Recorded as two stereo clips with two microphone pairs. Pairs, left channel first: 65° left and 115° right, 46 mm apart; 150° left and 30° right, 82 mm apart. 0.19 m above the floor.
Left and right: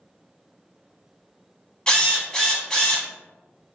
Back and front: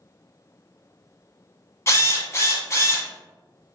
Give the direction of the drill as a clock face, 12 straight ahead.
8 o'clock.